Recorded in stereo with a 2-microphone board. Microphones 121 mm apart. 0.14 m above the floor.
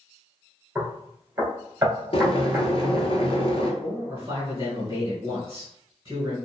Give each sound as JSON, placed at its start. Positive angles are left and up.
{"t": 0.8, "sound": "knocking", "side_deg": -20, "distance_m": 1.4}
{"t": 2.1, "sound": "boiling", "side_deg": 50, "distance_m": 0.6}
{"t": 3.8, "sound": "a man speaking", "side_deg": -30, "distance_m": 1.1}